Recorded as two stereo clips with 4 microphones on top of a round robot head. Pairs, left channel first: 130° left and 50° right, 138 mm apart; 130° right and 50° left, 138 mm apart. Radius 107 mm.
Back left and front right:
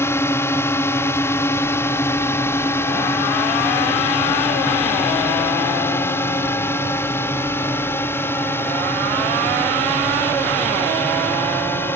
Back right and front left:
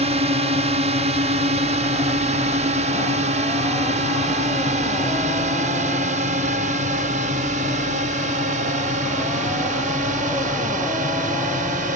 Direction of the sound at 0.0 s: 65° left.